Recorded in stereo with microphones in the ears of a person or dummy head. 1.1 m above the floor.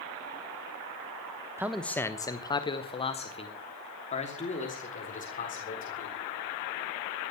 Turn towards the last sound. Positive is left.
turn(degrees=35)  # may be behind; listen again after turning